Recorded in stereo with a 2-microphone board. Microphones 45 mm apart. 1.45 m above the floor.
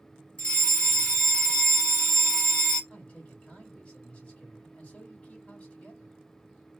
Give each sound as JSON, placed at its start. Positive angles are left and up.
{"t": 0.4, "sound": "a fire alarm", "side_deg": 25, "distance_m": 2.0}
{"t": 2.9, "sound": "a man speaking", "side_deg": 30, "distance_m": 2.5}